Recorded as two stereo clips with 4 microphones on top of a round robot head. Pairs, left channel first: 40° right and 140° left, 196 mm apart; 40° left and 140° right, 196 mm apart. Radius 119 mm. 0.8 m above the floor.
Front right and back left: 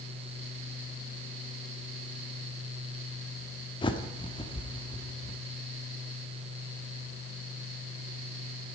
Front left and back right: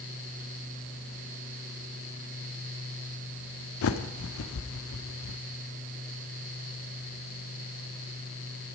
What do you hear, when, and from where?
3.8 s a bird: 30° left, 0.9 m